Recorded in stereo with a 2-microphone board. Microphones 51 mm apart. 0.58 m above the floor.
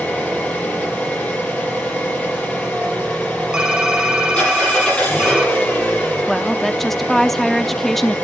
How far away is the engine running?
About 9 m.